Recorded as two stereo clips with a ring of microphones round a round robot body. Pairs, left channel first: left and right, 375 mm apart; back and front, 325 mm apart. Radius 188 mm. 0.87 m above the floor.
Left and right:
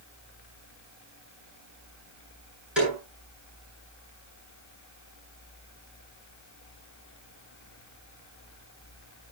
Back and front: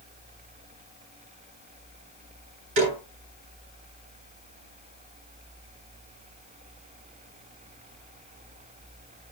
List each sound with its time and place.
2.8 s a snare drum: straight ahead, 10 m